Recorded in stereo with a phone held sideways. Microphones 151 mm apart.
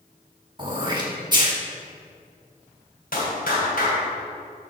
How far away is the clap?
About 3.5 m.